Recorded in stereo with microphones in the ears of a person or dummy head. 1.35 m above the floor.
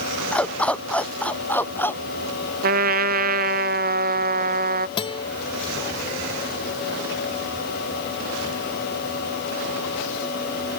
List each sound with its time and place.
0.3 s a dog barking: 5° left (ahead or behind); by 2.0 s 10° left (ahead or behind)
2.6 s a trumpet: 50° right (ahead or behind)
5.0 s a guitar: 30° left (ahead or behind)